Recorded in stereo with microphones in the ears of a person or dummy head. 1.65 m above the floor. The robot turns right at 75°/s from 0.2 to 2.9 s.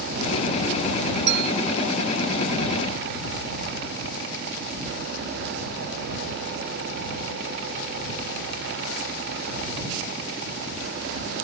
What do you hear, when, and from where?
1.3 s a clink: 65° right (ahead or behind); by 1.5 s 55° right (ahead or behind)